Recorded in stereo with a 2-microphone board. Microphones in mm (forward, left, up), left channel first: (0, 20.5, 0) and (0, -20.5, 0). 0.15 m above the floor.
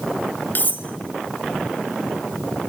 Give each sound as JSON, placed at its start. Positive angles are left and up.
{"t": 0.6, "sound": "cutlery clinking", "side_deg": 50, "distance_m": 1.3}